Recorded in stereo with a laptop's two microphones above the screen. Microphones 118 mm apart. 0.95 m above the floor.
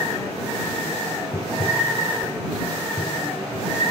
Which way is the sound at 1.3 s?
75° left (ahead or behind).